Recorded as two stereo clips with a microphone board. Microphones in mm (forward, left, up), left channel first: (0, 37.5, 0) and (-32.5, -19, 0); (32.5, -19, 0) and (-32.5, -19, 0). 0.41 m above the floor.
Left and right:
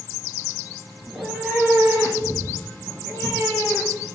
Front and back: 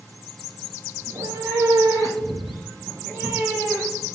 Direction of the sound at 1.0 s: 170° left.